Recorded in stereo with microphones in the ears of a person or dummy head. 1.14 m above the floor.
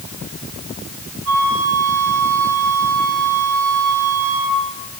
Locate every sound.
1.2 s a flute: 85° right, 4 m